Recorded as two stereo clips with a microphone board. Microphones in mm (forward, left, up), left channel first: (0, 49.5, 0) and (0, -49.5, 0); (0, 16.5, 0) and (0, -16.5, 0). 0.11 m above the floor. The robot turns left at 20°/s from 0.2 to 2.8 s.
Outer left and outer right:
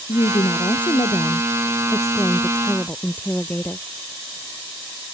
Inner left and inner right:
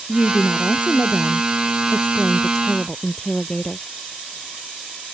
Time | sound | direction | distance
0.1 | a woman speaking | 70° left | ?